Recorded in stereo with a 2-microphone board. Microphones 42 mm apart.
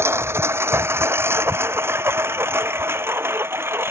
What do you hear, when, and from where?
0.0 s a lawn mower: 75° right (ahead or behind); by 3.9 s 65° right (ahead or behind)